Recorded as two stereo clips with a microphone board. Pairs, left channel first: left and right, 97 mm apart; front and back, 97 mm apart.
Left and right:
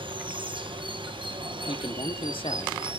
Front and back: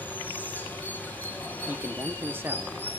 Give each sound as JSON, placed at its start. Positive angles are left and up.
{"t": 0.0, "sound": "running water", "azimuth_deg": -70, "distance_m": 2.5}
{"t": 1.7, "sound": "a man speaking", "azimuth_deg": 110, "distance_m": 1.4}